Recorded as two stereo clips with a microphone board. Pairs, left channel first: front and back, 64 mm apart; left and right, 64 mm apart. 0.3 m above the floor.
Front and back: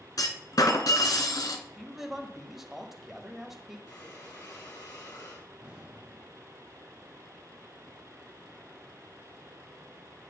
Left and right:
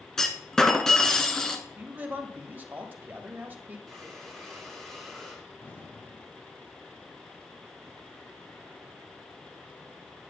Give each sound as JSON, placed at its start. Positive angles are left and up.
{"t": 0.2, "sound": "a clunk", "azimuth_deg": 10, "distance_m": 1.1}
{"t": 1.8, "sound": "a man speaking", "azimuth_deg": -100, "distance_m": 1.4}
{"t": 3.9, "sound": "breathing", "azimuth_deg": 5, "distance_m": 3.0}
{"t": 5.6, "sound": "an explosion", "azimuth_deg": 125, "distance_m": 2.0}